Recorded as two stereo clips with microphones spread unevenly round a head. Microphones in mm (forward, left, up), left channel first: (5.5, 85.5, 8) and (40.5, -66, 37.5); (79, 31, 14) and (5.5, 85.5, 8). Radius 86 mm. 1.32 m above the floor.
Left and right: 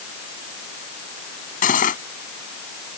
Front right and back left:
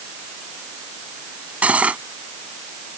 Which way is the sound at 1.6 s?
65° left.